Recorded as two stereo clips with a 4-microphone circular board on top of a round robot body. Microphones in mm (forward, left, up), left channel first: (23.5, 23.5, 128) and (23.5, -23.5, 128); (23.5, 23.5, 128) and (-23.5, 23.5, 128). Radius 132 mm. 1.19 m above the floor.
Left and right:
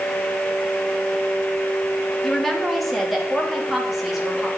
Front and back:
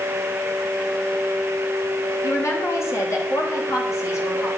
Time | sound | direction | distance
2.2 | a woman speaking | 10° left | 2.5 m